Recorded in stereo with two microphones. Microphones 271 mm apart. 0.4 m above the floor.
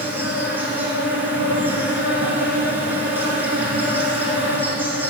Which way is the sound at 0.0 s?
5° right (ahead or behind).